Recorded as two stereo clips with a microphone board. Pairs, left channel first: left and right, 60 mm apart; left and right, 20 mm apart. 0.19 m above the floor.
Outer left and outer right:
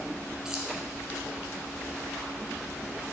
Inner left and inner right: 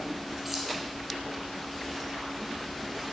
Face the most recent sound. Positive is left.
turn(degrees=-10)  # may be behind; listen again after turning